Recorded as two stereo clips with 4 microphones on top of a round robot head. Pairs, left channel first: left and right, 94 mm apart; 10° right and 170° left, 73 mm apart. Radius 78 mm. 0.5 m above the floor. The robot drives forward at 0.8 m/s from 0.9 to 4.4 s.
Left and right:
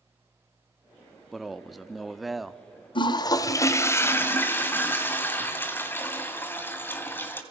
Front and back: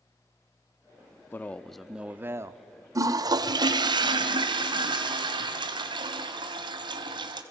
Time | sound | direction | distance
1.3 | a man speaking | straight ahead | 0.8 m
3.0 | a toilet flushing | 125° left | 0.8 m